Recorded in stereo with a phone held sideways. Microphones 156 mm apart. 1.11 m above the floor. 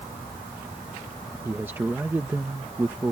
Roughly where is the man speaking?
Centre.